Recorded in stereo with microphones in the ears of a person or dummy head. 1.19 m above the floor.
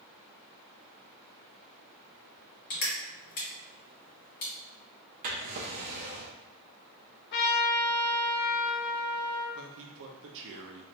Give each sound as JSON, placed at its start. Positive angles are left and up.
{"t": 2.7, "sound": "crushing", "side_deg": 45, "distance_m": 1.6}
{"t": 5.2, "sound": "a drawer", "side_deg": -40, "distance_m": 0.7}
{"t": 7.3, "sound": "a trumpet", "side_deg": 50, "distance_m": 0.7}
{"t": 9.6, "sound": "a man speaking", "side_deg": -70, "distance_m": 0.6}